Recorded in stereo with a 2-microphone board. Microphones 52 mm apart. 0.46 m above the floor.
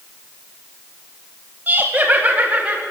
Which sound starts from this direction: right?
Laughter, at 1.7 s.